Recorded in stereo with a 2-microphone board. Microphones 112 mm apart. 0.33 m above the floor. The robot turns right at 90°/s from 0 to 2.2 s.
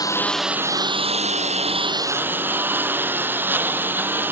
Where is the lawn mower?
145° left; by 4.3 s 20° right.